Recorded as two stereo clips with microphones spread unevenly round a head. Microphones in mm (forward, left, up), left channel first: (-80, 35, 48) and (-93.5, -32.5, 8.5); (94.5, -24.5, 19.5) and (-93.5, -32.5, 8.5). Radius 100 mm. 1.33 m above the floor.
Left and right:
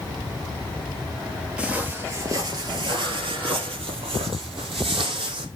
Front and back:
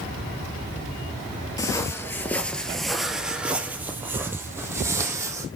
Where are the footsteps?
40° left, 1.4 m; by 5.5 s 100° right, 2.5 m.